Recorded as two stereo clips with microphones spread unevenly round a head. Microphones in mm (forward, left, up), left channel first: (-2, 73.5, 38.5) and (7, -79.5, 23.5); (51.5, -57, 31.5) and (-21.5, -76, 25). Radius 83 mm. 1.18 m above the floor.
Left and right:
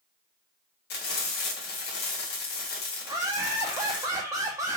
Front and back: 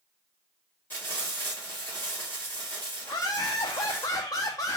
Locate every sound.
0.9 s frying: 90° left, 1.5 m
3.0 s laughter: 20° right, 0.6 m